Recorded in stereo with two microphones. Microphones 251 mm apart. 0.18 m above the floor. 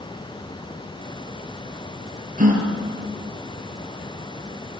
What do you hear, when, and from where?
2.4 s a gasp: 30° right (ahead or behind), 4 m